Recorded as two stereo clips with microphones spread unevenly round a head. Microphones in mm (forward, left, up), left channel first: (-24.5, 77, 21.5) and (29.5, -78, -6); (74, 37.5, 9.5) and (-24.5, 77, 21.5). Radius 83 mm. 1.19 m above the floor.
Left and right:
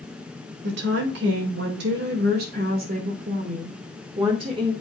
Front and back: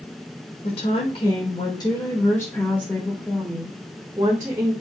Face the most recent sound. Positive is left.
turn(degrees=-130)